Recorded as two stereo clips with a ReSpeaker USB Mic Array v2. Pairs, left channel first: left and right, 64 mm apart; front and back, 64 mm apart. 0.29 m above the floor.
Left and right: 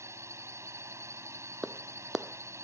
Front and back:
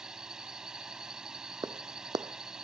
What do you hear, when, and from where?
0.0 s a drone: 105° right
1.6 s a clap: 175° right